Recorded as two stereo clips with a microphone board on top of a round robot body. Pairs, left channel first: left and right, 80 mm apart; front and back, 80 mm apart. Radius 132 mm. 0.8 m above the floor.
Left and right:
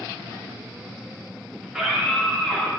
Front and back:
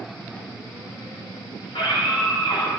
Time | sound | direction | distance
1.6 | a scream | 10° right | 5 m